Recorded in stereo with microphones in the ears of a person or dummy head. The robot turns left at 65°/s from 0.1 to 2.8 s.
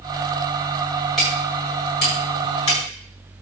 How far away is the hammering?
About 7 m.